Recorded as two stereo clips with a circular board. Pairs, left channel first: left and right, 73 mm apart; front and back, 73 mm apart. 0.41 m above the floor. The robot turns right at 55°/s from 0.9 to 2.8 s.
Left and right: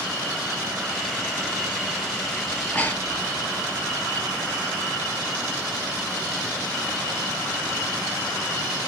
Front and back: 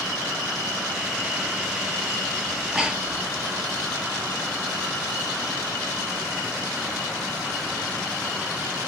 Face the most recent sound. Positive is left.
turn(degrees=120)